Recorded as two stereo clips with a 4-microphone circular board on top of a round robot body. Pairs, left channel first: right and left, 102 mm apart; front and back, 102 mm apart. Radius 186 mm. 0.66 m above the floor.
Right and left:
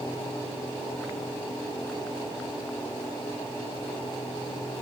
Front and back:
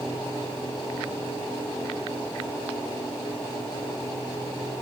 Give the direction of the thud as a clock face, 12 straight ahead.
No thud in this recording.